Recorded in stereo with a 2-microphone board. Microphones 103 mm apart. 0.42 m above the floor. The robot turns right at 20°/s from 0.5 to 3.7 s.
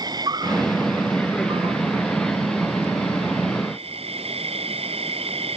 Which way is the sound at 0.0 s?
140° right.